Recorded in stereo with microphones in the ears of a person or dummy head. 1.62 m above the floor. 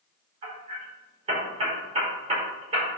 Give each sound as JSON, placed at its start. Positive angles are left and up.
{"t": 0.4, "sound": "hammering", "side_deg": -30, "distance_m": 5.0}